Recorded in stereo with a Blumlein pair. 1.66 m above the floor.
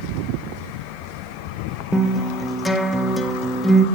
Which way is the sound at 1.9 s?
5° left.